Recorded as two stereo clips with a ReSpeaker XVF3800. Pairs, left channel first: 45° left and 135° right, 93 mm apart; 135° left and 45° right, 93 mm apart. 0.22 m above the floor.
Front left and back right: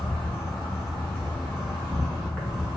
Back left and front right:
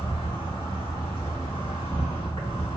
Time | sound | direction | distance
0.0 | an insect | 130° left | 1.2 m